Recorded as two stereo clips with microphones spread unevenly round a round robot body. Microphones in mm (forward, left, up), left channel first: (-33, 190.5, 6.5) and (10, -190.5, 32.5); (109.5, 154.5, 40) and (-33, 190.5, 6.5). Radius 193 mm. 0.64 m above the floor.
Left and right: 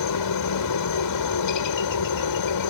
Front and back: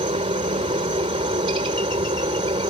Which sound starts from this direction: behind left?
A helicopter, at 0.0 s.